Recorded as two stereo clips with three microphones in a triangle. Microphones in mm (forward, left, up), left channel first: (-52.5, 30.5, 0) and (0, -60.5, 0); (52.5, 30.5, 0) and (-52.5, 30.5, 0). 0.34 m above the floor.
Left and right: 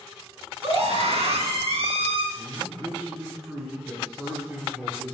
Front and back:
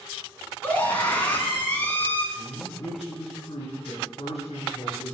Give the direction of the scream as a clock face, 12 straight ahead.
2 o'clock.